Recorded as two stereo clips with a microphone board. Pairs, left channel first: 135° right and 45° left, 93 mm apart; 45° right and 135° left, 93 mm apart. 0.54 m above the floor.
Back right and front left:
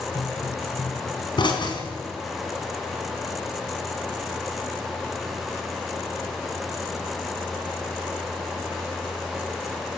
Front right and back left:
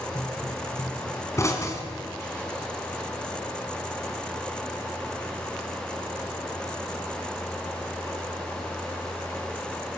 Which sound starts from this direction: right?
A pop, at 0.1 s.